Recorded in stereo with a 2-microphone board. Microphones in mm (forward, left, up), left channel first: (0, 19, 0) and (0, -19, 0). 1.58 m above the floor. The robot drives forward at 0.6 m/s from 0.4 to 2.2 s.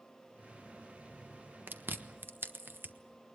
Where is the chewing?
70° right (ahead or behind), 1.3 m; by 2.9 s 75° right (ahead or behind), 1.3 m.